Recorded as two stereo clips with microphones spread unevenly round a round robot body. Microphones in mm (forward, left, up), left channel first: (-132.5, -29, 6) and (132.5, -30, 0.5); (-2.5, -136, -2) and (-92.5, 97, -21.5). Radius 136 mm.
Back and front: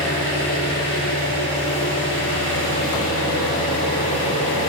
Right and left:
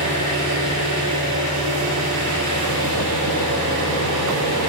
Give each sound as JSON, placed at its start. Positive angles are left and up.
{"t": 0.0, "sound": "an engine running", "azimuth_deg": 135, "distance_m": 8.0}